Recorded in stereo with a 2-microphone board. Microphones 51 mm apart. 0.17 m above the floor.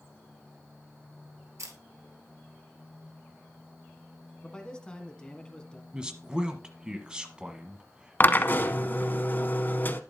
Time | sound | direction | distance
1.6 | a camera shutter | 70° right (ahead or behind) | 1.5 m
4.4 | a man speaking | 15° left (ahead or behind) | 1.3 m
5.9 | a man speaking | 20° right (ahead or behind) | 1.2 m
8.2 | a drill | 40° left (ahead or behind) | 0.6 m